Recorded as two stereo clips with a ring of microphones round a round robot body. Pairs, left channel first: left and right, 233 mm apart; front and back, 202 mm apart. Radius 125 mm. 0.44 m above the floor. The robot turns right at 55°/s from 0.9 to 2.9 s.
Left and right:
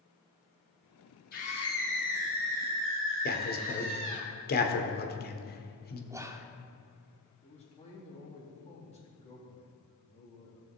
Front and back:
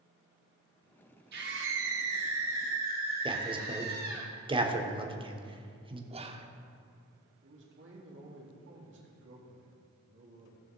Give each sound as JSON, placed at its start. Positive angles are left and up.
{"t": 1.3, "sound": "a scream", "azimuth_deg": 145, "distance_m": 3.5}
{"t": 3.2, "sound": "a man speaking", "azimuth_deg": 120, "distance_m": 1.3}
{"t": 6.1, "sound": "whispering", "azimuth_deg": -155, "distance_m": 1.0}
{"t": 7.4, "sound": "a man speaking", "azimuth_deg": 155, "distance_m": 3.5}